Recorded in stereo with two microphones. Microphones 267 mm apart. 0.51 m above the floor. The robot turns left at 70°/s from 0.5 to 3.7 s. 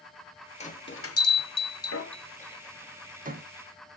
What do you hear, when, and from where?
0.6 s a bell: 25° left (ahead or behind), 0.5 m; by 3.5 s 45° right (ahead or behind), 0.5 m